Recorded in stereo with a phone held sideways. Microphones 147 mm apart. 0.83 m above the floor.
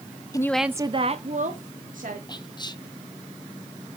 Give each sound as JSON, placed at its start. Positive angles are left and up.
{"t": 0.3, "sound": "a woman speaking", "side_deg": 25, "distance_m": 0.6}
{"t": 2.3, "sound": "whispering", "side_deg": 30, "distance_m": 0.7}